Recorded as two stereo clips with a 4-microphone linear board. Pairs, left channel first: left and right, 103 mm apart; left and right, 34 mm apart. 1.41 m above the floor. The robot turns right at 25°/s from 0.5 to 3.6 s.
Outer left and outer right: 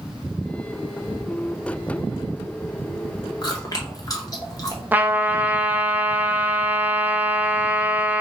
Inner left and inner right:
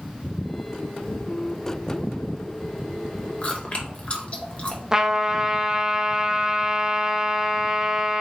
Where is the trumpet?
15° right (ahead or behind), 0.5 m.